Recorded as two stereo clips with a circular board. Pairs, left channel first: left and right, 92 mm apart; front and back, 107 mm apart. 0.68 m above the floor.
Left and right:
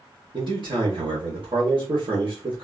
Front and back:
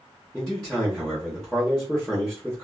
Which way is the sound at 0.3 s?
85° right.